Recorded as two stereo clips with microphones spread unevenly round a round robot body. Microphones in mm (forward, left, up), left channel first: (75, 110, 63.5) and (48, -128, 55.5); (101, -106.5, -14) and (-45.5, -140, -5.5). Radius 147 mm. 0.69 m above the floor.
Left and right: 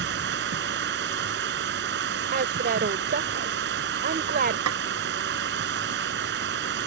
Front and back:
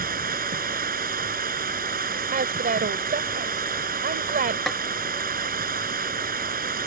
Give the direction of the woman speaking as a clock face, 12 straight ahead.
5 o'clock.